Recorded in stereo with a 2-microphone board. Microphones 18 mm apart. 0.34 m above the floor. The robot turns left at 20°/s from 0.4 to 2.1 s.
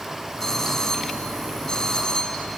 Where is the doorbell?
135° left, 3 m; by 2.5 s 100° left, 3 m.